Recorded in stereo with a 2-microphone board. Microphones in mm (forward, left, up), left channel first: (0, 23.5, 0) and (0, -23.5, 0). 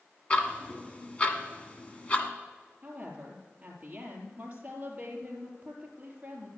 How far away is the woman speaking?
About 3.5 m.